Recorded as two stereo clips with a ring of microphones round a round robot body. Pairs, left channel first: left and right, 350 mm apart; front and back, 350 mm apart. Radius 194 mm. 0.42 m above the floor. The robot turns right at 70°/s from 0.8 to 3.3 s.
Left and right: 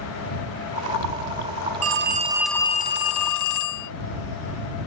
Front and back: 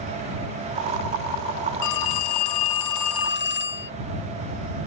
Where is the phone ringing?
45° right; by 3.9 s 60° left.